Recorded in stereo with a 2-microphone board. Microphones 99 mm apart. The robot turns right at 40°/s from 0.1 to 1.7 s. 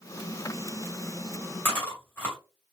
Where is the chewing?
20° left (ahead or behind), 1.9 m.